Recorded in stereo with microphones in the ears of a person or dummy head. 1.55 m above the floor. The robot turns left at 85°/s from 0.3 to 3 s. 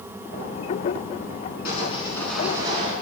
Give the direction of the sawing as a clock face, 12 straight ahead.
10 o'clock.